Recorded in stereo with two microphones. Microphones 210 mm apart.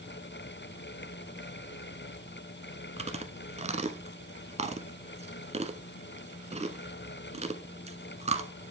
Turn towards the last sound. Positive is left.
turn(degrees=-30)  # may be behind; listen again after turning